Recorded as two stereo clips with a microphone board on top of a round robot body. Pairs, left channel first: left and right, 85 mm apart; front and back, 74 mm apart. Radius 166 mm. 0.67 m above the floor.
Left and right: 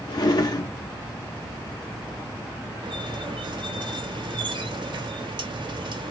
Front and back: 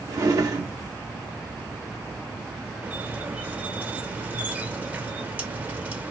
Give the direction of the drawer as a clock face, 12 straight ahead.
8 o'clock.